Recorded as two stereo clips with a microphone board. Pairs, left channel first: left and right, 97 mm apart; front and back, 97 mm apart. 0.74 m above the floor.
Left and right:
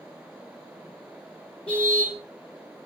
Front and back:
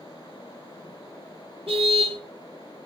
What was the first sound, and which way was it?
A car horn, 170° left.